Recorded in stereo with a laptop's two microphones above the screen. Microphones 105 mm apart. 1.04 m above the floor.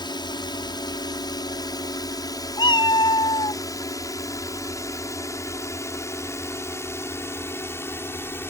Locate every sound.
0.0 s a drone: 45° left (ahead or behind); by 8.5 s 20° left (ahead or behind)
2.6 s a cat meowing: 45° left (ahead or behind)